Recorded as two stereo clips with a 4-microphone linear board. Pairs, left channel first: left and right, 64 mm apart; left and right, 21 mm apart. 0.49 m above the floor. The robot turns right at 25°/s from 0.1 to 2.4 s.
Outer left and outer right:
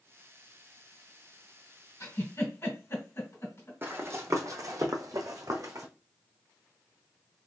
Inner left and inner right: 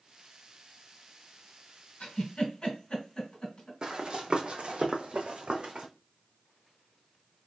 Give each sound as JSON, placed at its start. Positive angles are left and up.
{"t": 2.0, "sound": "a giggle", "side_deg": 50, "distance_m": 1.9}
{"t": 3.8, "sound": "running footsteps", "side_deg": -35, "distance_m": 1.0}